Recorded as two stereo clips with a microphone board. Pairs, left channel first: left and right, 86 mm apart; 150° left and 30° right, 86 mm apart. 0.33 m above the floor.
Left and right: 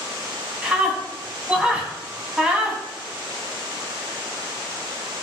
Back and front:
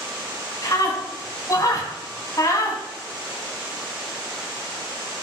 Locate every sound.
0.6 s a scream: 165° right, 3 m